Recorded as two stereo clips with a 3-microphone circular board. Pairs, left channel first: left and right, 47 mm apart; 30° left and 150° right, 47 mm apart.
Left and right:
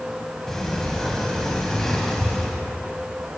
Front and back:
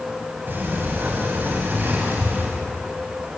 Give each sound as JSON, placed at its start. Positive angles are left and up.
{"t": 0.5, "sound": "a sliding door", "azimuth_deg": 170, "distance_m": 4.0}